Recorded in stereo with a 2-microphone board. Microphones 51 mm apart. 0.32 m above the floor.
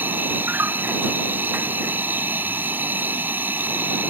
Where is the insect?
40° right (ahead or behind).